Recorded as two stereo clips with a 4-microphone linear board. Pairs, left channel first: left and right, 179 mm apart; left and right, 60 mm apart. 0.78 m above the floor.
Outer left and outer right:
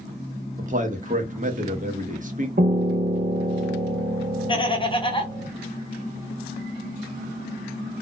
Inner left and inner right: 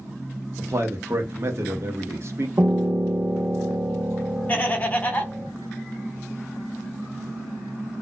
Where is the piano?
60° right (ahead or behind), 0.5 m.